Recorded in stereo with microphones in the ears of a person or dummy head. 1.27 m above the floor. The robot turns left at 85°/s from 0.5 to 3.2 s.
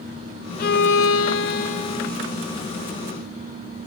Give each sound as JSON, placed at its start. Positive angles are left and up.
{"t": 0.6, "sound": "a violin", "azimuth_deg": 140, "distance_m": 0.5}